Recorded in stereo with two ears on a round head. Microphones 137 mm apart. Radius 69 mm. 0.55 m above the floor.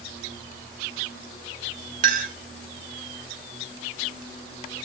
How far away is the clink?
About 1.3 m.